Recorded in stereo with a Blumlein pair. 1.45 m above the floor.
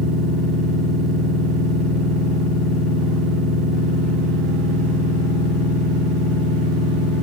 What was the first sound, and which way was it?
A machine running, straight ahead.